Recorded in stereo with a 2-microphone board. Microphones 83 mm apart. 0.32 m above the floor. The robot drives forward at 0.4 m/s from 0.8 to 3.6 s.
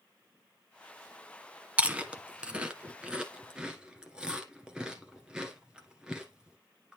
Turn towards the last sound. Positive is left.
turn(degrees=-10)  # may be behind; listen again after turning